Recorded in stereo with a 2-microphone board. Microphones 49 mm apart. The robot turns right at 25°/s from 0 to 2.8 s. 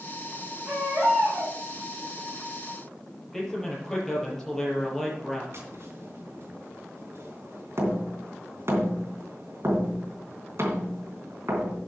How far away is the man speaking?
About 6.5 m.